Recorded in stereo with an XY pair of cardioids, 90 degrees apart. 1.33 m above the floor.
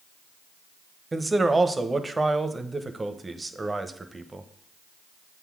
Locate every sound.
1.1 s a man speaking: 20° right, 0.9 m